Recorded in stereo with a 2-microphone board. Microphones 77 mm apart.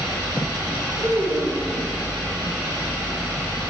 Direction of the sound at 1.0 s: 55° right (ahead or behind).